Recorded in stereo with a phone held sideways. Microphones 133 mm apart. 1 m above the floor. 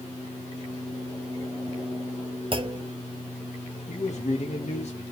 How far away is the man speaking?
About 0.8 m.